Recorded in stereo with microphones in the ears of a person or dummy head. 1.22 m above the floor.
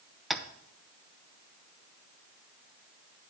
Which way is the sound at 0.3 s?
Centre (ahead or behind).